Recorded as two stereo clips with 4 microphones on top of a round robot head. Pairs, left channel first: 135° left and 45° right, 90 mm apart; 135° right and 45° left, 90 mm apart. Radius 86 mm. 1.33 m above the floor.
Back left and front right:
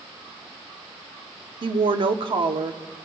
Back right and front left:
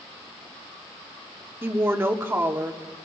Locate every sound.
1.6 s a woman speaking: 20° right, 0.9 m